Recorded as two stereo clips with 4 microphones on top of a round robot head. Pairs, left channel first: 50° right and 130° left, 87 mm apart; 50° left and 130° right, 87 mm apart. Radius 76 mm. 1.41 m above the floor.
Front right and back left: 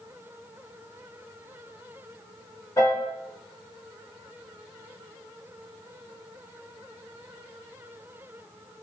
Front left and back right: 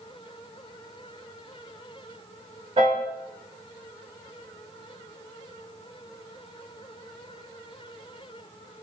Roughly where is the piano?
Right.